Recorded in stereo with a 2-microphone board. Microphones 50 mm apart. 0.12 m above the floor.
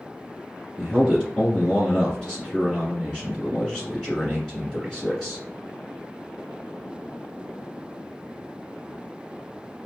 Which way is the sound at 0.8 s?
10° left (ahead or behind).